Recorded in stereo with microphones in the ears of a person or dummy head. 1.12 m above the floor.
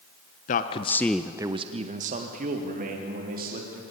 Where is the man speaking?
40° left (ahead or behind), 1.0 m; by 3.8 s 40° right (ahead or behind), 3 m.